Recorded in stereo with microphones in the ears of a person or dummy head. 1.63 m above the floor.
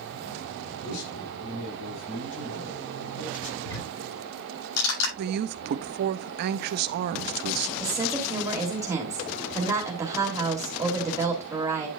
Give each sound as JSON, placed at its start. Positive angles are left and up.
{"t": 0.8, "sound": "a man speaking", "side_deg": 85, "distance_m": 4.5}
{"t": 3.6, "sound": "ticking", "side_deg": 80, "distance_m": 7.0}
{"t": 5.2, "sound": "a man speaking", "side_deg": -50, "distance_m": 0.6}
{"t": 7.8, "sound": "a woman speaking", "side_deg": -15, "distance_m": 2.5}